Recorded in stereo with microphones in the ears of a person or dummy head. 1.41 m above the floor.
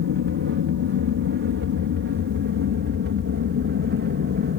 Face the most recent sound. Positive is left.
turn(degrees=-50)  # may be behind; listen again after turning